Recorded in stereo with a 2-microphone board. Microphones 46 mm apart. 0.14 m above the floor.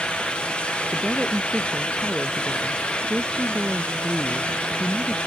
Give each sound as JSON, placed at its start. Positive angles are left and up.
{"t": 0.9, "sound": "a woman speaking", "side_deg": -30}